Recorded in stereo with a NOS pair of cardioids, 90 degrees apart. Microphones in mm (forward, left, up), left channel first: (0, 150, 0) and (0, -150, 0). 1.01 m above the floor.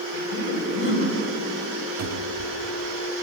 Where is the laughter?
50° left, 5.5 m.